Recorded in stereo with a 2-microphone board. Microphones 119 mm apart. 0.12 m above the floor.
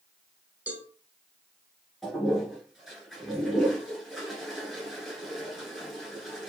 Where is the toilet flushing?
5° right (ahead or behind), 1.8 m.